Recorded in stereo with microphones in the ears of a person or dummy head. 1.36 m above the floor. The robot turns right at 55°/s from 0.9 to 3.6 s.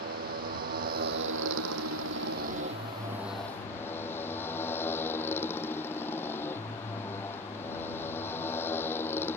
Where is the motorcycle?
135° right; by 9.4 s 10° left.